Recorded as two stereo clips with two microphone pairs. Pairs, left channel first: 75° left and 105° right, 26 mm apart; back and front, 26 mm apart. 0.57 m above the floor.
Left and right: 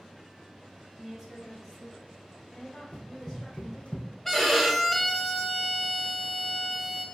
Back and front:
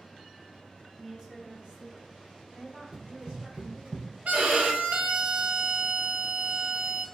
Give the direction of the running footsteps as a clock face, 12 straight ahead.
12 o'clock.